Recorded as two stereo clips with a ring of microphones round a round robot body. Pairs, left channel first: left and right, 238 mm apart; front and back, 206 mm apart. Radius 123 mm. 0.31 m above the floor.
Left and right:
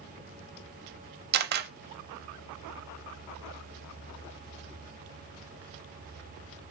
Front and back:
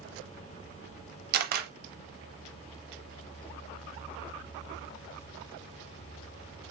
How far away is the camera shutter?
About 0.6 m.